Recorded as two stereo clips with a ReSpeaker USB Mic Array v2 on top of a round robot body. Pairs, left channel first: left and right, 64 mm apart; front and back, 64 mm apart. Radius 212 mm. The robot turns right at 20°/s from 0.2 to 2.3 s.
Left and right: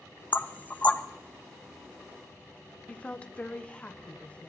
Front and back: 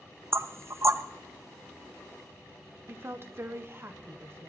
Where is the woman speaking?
150° left, 1.4 m.